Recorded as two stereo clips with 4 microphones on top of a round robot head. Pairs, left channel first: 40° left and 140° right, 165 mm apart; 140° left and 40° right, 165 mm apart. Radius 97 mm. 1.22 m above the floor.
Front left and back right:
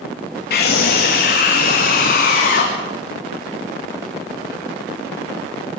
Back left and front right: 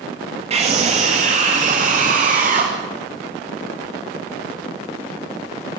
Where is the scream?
15° left, 2.5 m; by 2.7 s straight ahead, 3.5 m.